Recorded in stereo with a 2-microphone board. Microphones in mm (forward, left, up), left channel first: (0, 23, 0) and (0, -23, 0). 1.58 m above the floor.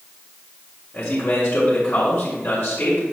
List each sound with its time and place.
0.9 s a man speaking: 60° left (ahead or behind), 5.5 m